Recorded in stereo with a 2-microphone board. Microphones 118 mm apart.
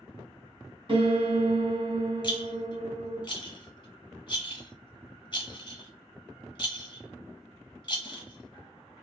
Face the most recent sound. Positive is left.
turn(degrees=40)  # may be behind; listen again after turning